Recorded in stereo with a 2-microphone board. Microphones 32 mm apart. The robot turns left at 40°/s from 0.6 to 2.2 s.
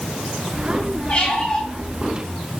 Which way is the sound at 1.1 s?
45° left (ahead or behind).